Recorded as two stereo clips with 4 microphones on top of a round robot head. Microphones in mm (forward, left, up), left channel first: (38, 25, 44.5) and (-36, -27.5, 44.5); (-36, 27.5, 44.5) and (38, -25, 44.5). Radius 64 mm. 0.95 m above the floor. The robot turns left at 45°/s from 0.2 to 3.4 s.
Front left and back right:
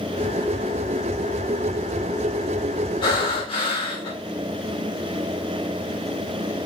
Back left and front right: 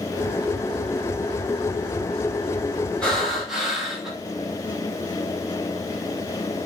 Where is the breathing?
65° left, 2 m; by 4.1 s 50° left, 2 m.